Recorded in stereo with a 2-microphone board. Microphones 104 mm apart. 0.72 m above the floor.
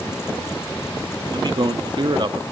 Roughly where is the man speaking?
Right.